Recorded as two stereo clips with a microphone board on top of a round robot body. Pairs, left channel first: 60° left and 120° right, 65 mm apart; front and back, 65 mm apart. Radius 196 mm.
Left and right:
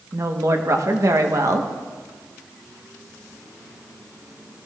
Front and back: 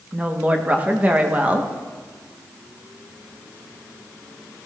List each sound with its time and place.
0.1 s a woman speaking: 120° right, 1.5 m